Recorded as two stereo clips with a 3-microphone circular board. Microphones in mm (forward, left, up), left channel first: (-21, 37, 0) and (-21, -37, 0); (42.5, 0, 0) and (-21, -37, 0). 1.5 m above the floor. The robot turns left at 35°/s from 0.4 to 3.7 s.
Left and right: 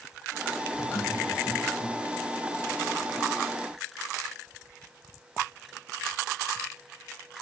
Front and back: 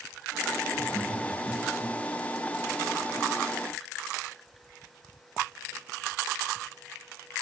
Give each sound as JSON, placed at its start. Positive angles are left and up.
{"t": 0.7, "sound": "laughter", "azimuth_deg": 130, "distance_m": 6.5}